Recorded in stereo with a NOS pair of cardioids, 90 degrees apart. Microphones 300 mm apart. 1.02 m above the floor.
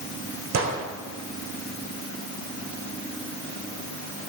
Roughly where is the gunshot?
Ahead right.